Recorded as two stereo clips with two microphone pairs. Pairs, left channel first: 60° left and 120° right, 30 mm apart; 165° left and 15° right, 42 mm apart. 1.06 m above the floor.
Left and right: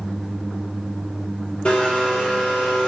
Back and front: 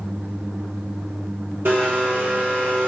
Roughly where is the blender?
Ahead.